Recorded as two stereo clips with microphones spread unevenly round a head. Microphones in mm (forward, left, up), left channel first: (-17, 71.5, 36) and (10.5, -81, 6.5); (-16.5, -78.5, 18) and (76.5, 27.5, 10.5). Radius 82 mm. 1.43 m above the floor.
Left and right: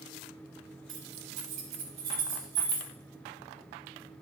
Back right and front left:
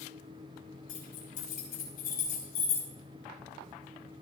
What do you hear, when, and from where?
0.9 s keys jangling: 105° right, 8.5 m; by 2.9 s 120° right, 8 m